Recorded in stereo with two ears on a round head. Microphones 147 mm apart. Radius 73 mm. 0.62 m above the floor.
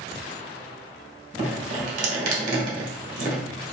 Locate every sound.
1.4 s dripping: 50° right (ahead or behind), 1.4 m